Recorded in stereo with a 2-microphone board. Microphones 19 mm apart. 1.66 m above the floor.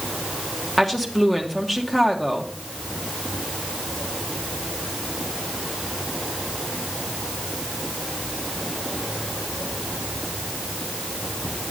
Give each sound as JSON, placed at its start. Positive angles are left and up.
{"t": 0.8, "sound": "a woman speaking", "side_deg": 15, "distance_m": 1.7}